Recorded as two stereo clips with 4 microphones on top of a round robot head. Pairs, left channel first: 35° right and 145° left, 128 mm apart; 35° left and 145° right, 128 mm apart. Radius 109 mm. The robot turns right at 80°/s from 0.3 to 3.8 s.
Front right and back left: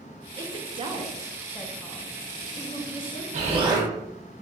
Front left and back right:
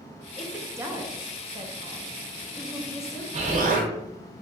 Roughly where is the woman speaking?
Behind left.